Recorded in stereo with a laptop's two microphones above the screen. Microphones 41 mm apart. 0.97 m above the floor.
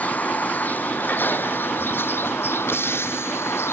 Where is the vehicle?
40° left (ahead or behind); by 3.7 s 85° left.